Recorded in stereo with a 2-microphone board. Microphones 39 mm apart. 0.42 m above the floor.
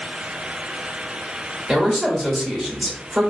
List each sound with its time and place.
1.7 s a man speaking: 5° left (ahead or behind), 1.1 m